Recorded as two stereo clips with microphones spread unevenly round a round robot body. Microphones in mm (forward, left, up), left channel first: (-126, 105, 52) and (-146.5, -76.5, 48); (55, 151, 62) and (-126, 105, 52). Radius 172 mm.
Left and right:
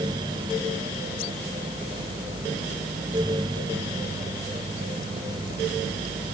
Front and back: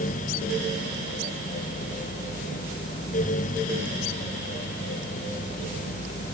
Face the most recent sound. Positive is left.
No sound to turn to.